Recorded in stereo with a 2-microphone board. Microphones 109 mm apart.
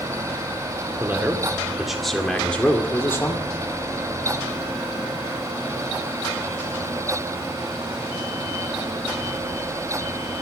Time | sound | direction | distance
1.0 | a man speaking | 15° right (ahead or behind) | 2 m